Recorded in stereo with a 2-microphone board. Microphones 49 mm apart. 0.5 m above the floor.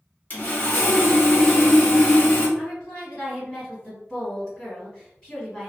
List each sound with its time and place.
0.3 s sawing: 35° left (ahead or behind), 1.1 m
2.6 s a woman speaking: 15° left (ahead or behind), 1.9 m